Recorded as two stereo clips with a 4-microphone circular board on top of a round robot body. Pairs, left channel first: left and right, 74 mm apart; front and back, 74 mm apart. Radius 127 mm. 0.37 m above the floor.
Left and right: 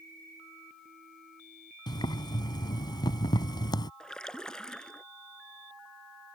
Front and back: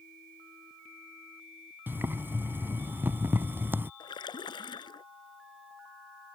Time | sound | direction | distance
1.9 | boiling | 115° left | ?
4.0 | a splash | 10° left | ?